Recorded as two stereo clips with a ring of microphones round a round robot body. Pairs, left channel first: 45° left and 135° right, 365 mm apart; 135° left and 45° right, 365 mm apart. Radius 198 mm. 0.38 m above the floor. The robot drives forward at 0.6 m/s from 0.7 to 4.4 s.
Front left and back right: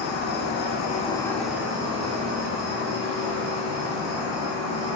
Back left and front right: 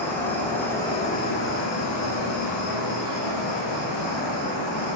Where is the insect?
55° left, 0.7 m; by 5.0 s 175° left, 2 m.